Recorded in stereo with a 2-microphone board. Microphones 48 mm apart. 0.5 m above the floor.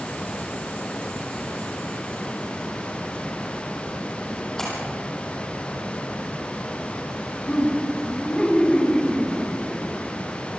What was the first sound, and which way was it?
A splash, 10° left (ahead or behind).